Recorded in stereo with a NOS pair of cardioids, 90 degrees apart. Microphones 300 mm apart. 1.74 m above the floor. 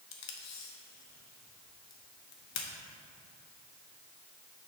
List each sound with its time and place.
0.1 s tape being pulled: 65° left, 1.1 m